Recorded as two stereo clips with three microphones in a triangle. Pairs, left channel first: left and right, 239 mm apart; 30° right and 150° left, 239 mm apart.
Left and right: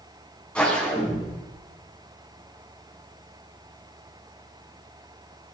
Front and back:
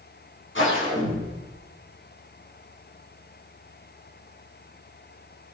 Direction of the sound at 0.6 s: 5° left.